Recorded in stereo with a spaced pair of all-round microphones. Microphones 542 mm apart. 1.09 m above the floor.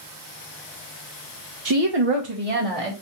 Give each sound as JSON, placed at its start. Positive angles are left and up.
{"t": 1.6, "sound": "a woman speaking", "side_deg": -35, "distance_m": 0.5}